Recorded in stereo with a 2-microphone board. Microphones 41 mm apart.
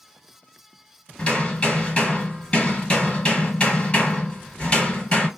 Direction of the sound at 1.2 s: 30° left (ahead or behind).